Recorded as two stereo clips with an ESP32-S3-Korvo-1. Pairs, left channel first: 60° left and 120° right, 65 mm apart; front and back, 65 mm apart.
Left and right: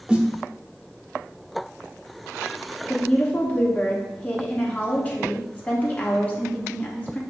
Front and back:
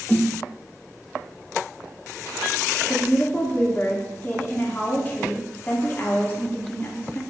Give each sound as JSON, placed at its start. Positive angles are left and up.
{"t": 0.1, "sound": "a snare drum", "azimuth_deg": -50, "distance_m": 0.7}
{"t": 2.9, "sound": "a woman speaking", "azimuth_deg": 20, "distance_m": 0.9}